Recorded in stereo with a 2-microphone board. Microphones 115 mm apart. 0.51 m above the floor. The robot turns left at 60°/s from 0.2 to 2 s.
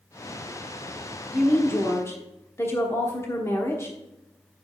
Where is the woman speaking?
5° left (ahead or behind), 1.1 m; by 4.0 s 25° left (ahead or behind), 1.1 m.